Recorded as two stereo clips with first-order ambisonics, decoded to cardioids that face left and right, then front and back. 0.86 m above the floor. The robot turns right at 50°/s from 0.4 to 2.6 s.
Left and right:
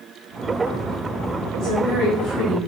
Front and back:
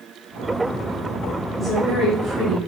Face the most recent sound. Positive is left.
turn(degrees=130)